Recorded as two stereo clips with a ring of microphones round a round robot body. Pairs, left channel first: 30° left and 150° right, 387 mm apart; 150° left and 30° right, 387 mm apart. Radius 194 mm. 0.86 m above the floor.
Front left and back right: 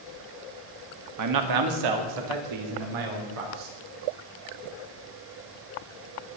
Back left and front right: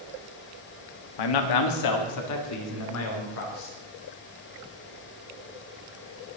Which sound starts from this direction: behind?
A man speaking, at 1.2 s.